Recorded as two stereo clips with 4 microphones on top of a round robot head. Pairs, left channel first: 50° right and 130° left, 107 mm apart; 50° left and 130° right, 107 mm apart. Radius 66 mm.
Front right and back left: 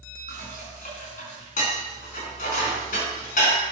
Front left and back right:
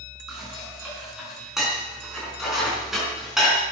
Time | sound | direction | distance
0.3 | dishes clattering | 40° right | 4 m